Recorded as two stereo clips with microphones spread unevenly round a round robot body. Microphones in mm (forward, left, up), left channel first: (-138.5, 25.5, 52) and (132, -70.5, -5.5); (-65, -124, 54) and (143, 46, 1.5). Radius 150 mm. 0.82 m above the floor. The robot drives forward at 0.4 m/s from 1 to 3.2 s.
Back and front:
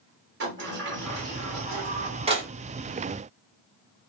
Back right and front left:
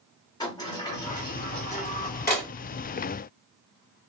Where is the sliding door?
60° right, 1.5 m; by 2.5 s 85° right, 1.4 m.